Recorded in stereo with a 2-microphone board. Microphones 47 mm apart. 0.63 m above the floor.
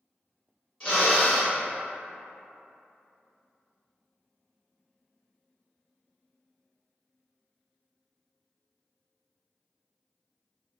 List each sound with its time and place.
0.8 s a drill: 25° left (ahead or behind), 1.6 m